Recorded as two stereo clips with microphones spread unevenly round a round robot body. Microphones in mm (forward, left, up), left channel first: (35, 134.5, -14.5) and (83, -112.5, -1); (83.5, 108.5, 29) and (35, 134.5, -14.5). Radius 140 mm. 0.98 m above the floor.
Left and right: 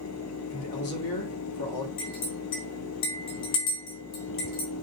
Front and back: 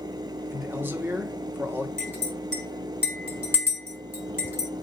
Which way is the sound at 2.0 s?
90° left.